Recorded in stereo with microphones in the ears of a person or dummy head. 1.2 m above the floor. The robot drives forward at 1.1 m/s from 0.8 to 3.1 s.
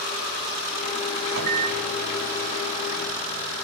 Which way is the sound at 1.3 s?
55° right (ahead or behind).